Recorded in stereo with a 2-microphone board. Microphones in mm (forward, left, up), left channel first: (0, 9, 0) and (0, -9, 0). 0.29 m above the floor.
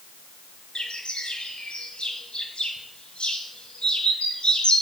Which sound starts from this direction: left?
A bird, at 0.8 s.